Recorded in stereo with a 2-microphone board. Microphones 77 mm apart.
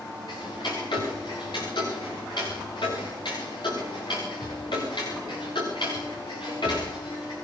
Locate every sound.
0.3 s ticking: 85° left, 9 m